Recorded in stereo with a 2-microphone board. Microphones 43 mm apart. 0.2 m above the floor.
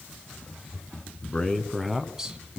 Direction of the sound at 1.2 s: 25° left (ahead or behind).